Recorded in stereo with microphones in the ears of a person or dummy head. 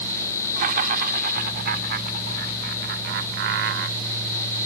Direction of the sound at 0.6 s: 50° right (ahead or behind).